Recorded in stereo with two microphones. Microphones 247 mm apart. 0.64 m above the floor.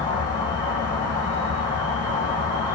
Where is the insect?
80° right, 1.7 m.